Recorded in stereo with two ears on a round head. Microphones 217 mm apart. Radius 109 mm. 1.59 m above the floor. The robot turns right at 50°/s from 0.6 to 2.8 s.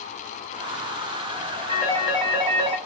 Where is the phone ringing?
155° left, 3.5 m; by 2.8 s 150° right, 3.5 m.